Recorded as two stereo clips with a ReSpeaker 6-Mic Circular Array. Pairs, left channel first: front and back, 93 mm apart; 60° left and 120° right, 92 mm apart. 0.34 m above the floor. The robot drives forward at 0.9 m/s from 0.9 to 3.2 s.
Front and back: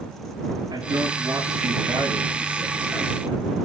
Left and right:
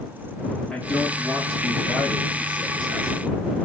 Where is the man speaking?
145° left, 5 m; by 3.5 s 155° left, 7 m.